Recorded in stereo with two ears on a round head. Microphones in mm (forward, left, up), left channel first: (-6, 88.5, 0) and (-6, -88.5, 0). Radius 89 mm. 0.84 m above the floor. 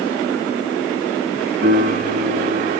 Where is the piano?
40° right (ahead or behind), 1.4 m.